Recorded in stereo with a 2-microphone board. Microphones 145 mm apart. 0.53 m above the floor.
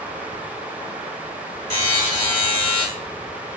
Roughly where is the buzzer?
Right.